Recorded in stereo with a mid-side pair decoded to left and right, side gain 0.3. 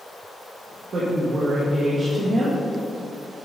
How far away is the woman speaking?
About 2.0 m.